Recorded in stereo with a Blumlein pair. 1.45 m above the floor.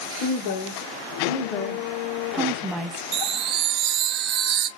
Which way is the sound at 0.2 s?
45° left.